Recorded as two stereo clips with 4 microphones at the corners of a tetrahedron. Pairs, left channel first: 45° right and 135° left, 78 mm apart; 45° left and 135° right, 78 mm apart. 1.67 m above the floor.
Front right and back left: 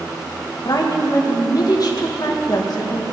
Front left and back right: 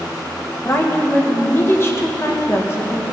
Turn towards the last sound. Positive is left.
turn(degrees=-15)